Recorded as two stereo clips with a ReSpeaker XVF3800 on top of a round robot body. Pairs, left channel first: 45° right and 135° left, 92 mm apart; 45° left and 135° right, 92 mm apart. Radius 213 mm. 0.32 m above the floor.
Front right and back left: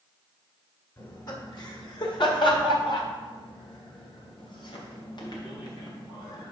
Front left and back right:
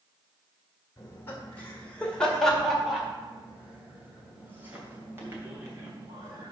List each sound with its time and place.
1.0 s laughter: 10° right, 1.9 m; by 6.5 s 80° right, 3.5 m